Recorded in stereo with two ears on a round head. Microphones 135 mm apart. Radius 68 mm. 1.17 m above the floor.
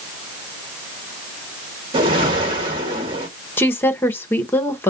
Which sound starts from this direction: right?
A whoosh, at 1.9 s.